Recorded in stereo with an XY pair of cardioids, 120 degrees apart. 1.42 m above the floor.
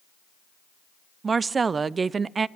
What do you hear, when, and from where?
1.2 s a woman speaking: 30° right, 0.6 m